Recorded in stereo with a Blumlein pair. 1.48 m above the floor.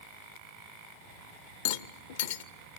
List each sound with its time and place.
1.6 s a rattle: 55° left, 0.8 m